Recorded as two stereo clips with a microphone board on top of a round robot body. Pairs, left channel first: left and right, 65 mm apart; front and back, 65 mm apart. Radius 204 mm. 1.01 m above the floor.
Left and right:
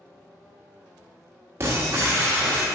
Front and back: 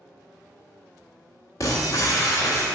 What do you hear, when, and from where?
1.6 s breaking glass: 35° right, 1.3 m